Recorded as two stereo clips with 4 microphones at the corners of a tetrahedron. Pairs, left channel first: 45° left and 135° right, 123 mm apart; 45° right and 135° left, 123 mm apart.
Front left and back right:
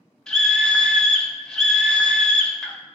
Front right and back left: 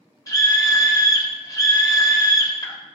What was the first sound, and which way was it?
A scream, 35° right.